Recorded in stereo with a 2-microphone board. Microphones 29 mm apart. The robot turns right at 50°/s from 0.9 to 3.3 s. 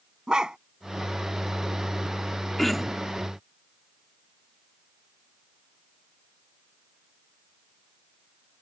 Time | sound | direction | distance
0.3 | a dog barking | 30° right (ahead or behind) | ?
2.6 | throat clearing | 10° left (ahead or behind) | ?